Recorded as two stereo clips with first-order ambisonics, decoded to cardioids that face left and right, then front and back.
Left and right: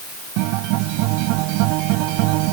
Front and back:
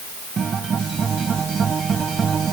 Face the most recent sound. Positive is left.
turn(degrees=-110)